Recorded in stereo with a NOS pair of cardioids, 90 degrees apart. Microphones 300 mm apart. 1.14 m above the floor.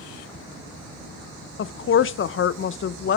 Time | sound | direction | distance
1.6 | a woman speaking | 40° left | 0.7 m